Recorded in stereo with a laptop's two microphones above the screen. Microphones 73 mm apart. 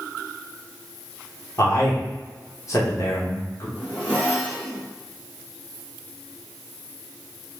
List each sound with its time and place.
1.6 s a man speaking: 45° left (ahead or behind), 1.1 m
3.8 s a zipper: 25° left (ahead or behind), 1.9 m